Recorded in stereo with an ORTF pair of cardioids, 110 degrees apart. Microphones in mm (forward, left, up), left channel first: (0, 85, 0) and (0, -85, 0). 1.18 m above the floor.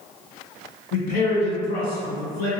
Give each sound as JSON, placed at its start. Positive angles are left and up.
{"t": 0.9, "sound": "a man speaking", "azimuth_deg": 60, "distance_m": 1.4}